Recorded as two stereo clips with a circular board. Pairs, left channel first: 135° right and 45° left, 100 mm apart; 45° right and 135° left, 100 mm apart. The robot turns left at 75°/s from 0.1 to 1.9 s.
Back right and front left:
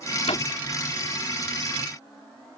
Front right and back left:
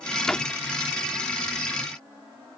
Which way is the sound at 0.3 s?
130° right.